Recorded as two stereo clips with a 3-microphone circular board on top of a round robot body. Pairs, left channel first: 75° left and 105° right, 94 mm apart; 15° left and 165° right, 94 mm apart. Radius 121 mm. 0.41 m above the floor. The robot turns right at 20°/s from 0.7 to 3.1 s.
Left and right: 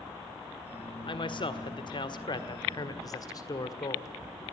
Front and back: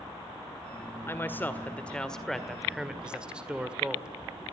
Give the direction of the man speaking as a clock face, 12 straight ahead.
9 o'clock.